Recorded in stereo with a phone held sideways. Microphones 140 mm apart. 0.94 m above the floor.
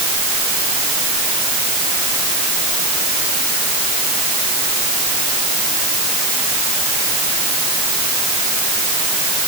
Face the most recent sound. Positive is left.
No sound to turn to.